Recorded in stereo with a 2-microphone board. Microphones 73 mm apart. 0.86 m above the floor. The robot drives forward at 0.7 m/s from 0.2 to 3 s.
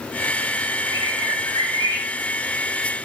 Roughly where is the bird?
Left.